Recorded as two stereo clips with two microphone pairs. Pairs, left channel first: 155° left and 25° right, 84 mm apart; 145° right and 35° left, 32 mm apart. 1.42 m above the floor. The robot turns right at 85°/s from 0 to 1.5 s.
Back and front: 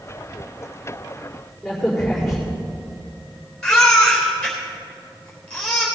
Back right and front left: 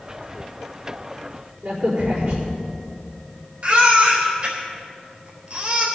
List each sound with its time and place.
1.6 s a crack: 60° left, 4.5 m
3.6 s a baby crying: 70° left, 3.5 m